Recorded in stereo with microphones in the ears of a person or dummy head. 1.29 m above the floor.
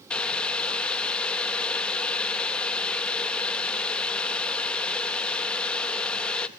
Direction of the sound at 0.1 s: 10° left (ahead or behind).